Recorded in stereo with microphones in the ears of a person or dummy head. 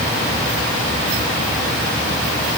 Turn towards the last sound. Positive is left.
No sound to turn to.